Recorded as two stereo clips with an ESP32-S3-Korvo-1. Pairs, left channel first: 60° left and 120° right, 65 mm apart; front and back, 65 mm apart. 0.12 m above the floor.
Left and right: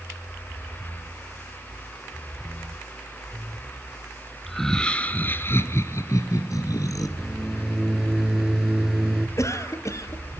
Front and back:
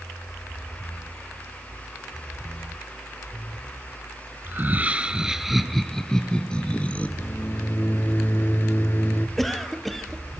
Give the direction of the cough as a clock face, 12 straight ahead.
9 o'clock.